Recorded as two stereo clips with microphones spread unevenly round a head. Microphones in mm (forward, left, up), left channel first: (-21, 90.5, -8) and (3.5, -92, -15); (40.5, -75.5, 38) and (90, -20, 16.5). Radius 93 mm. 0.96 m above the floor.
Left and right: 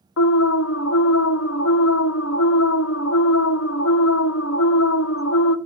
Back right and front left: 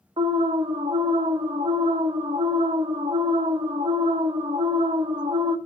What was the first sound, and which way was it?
An alarm, 75° left.